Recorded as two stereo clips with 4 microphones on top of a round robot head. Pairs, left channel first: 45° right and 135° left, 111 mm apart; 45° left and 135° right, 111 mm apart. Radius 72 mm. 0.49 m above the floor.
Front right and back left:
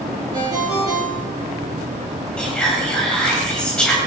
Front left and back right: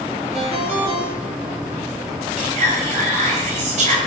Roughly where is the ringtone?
Behind.